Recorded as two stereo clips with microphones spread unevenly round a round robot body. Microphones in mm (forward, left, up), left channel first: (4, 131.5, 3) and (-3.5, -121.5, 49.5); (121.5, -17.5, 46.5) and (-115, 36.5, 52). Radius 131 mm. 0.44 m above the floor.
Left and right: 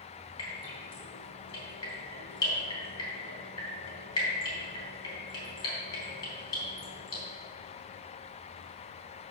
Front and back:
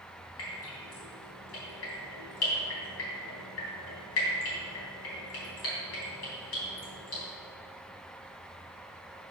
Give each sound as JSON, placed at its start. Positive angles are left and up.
{"t": 0.4, "sound": "dripping", "azimuth_deg": 15, "distance_m": 3.5}